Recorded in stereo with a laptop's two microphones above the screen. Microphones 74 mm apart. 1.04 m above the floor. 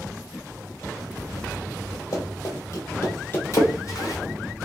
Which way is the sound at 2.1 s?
45° left (ahead or behind).